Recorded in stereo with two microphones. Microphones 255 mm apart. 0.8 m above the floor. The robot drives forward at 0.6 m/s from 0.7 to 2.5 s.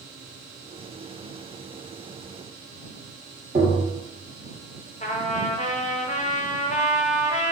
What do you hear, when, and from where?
3.5 s tapping: 35° right (ahead or behind), 1.1 m
5.0 s a trumpet: 30° left (ahead or behind), 0.5 m